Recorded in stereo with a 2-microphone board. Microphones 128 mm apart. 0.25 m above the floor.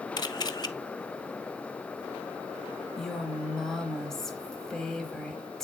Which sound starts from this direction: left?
A camera shutter, at 0.2 s.